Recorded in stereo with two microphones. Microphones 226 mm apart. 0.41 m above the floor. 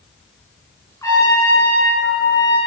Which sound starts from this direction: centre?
A trumpet, at 1.0 s.